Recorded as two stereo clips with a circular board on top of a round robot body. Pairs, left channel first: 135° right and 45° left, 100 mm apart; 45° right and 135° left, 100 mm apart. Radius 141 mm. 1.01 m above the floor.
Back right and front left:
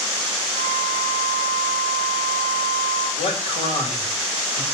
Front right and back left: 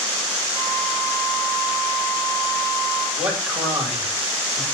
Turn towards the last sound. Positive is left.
turn(degrees=-145)